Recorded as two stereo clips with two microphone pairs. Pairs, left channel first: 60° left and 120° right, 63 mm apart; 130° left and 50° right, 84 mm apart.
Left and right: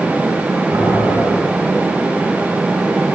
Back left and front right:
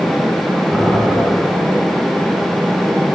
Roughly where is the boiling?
Behind right.